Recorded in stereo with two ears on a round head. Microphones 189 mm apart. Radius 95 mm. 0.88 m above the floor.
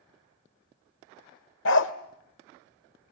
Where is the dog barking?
60° left (ahead or behind), 1.3 m.